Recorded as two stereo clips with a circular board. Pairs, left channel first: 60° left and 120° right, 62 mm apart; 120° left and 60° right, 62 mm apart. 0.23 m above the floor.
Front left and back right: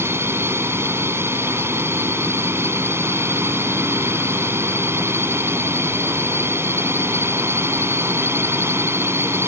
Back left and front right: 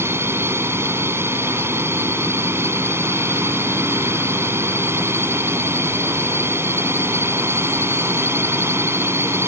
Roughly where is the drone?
Right.